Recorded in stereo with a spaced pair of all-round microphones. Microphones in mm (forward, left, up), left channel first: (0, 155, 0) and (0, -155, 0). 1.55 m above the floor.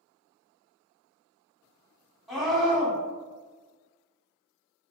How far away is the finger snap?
No finger snap in this recording.